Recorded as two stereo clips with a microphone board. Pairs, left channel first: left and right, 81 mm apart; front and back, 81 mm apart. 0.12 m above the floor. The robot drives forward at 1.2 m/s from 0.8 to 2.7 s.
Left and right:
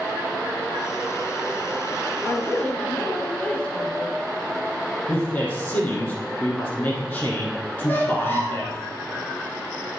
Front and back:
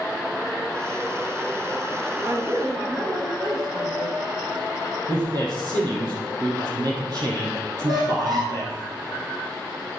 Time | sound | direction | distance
2.2 | a woman speaking | 150° left | 1.9 m
5.1 | a man speaking | 155° left | 3.5 m
7.8 | a squeak | 150° left | 3.5 m